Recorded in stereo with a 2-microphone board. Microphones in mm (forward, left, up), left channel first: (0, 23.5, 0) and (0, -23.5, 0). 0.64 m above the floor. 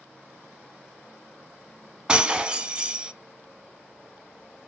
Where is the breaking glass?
20° right (ahead or behind), 0.5 m.